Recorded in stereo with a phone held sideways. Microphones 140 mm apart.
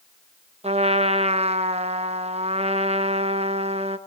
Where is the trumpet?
50° right (ahead or behind), 1.1 m.